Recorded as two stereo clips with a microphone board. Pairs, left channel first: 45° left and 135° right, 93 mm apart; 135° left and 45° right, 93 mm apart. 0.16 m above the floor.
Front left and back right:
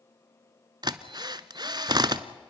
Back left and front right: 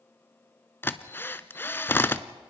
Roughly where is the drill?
Behind.